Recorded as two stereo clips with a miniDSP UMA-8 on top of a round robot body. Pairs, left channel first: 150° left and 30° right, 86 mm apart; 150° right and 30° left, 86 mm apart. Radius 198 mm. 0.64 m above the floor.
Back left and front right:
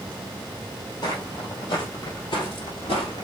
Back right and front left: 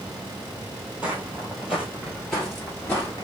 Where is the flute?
No flute in this recording.